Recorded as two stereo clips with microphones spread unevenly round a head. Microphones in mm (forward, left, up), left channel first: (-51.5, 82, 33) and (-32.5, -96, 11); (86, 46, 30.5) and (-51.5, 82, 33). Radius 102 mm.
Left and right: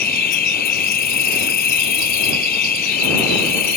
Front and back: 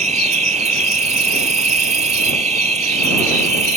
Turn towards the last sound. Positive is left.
turn(degrees=130)